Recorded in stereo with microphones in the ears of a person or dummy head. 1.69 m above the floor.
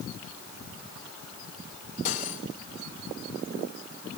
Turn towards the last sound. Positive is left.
turn(degrees=50)  # may be behind; listen again after turning